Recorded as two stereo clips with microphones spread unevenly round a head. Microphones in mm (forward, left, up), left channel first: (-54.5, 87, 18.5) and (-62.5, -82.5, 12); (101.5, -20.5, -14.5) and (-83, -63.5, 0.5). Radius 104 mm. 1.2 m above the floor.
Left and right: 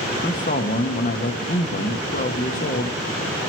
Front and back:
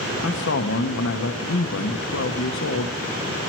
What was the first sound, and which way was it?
A man speaking, 35° left.